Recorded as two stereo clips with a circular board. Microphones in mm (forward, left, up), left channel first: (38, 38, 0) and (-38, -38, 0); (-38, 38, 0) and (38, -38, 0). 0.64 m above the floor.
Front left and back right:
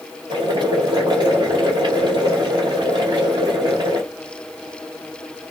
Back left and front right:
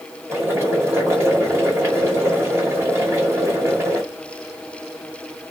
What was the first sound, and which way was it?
Boiling, 105° right.